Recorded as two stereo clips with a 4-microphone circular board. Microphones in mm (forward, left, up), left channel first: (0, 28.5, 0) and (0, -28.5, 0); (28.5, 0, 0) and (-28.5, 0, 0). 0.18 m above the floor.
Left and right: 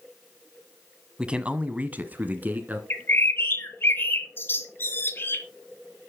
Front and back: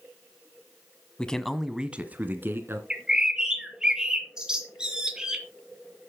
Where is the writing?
No writing in this recording.